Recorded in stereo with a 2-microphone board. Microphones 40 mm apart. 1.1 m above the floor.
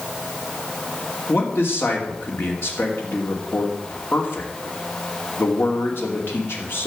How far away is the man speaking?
About 2.5 m.